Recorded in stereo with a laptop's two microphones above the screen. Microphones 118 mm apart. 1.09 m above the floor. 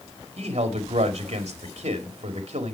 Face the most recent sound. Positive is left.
turn(degrees=-60)  # may be behind; listen again after turning